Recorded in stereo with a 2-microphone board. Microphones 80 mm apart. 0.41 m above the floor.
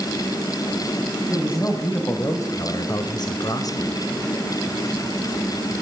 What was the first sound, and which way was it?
A man speaking, 25° left (ahead or behind).